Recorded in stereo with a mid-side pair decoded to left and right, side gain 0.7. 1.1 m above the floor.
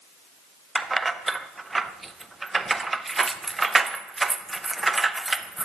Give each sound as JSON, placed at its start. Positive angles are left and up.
{"t": 0.8, "sound": "keys jangling", "azimuth_deg": -15, "distance_m": 0.5}